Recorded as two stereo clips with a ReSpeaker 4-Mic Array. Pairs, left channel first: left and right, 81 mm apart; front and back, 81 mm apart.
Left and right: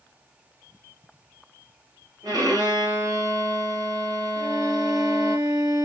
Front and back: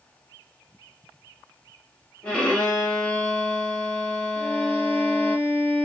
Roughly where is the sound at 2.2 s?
Right.